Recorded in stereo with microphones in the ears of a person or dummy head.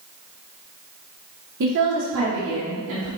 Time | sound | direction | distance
1.6 | a woman speaking | 55° right (ahead or behind) | 1.0 m